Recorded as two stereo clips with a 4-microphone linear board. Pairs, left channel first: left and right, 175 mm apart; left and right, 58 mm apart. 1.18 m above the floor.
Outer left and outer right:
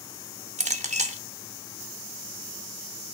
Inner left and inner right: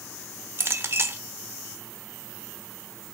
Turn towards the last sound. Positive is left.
turn(degrees=-45)  # may be behind; listen again after turning